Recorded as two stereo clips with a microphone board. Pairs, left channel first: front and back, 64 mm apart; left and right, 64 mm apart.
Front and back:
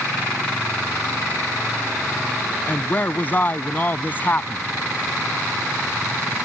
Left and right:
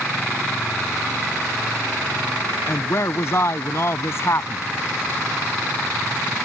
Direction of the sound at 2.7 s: 55° left.